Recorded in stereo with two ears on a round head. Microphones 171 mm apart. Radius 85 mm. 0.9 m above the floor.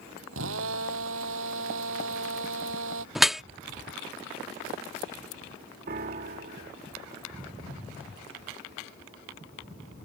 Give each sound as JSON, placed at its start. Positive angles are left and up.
{"t": 0.3, "sound": "a drill", "side_deg": -75}
{"t": 3.1, "sound": "dripping", "side_deg": 0}
{"t": 5.9, "sound": "a piano", "side_deg": -50}